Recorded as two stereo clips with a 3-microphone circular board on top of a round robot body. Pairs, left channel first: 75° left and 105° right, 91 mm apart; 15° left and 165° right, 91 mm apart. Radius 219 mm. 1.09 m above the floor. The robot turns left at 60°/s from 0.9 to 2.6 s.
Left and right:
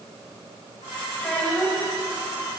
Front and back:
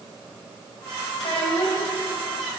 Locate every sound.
1.2 s a child speaking: 15° left, 5.5 m; by 1.9 s 30° right, 5.5 m